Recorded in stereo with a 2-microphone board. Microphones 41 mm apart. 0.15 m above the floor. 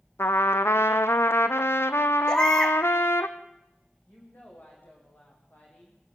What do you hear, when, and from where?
0.2 s a trumpet: 80° left, 1.2 m
2.3 s a baby crying: 15° left (ahead or behind), 3.5 m
4.1 s a woman speaking: 45° left (ahead or behind), 8.5 m